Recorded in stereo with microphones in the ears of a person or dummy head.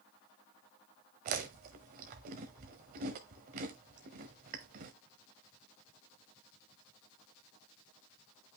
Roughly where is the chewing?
Right.